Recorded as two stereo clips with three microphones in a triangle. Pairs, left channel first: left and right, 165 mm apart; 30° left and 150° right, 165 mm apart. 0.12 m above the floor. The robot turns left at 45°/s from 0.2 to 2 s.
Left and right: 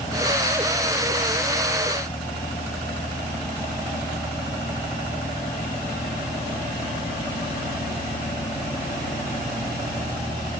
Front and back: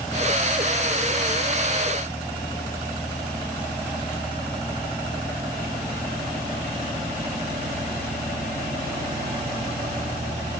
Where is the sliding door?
No sliding door in this recording.